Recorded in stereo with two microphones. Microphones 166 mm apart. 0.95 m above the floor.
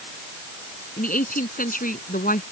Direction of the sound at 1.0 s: 55° left (ahead or behind).